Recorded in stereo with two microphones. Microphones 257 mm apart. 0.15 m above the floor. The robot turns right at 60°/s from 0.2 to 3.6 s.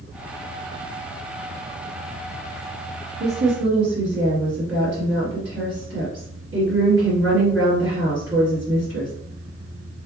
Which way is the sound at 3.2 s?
40° right (ahead or behind).